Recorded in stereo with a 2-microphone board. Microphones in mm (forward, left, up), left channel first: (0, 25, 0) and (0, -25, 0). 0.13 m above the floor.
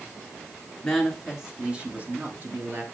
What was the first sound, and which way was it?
A woman speaking, 5° left (ahead or behind).